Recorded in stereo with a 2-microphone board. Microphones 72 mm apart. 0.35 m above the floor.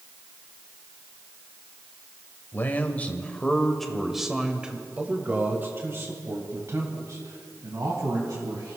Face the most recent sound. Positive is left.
turn(degrees=-55)  # may be behind; listen again after turning